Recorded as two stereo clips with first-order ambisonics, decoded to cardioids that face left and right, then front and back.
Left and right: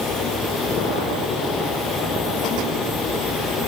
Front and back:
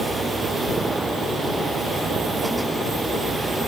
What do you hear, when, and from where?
Only background noise.